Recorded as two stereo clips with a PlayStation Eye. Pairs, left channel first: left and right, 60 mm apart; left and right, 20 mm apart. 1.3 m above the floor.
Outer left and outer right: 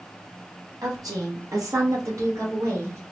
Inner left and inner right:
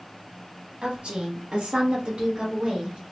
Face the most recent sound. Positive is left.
turn(degrees=-55)  # may be behind; listen again after turning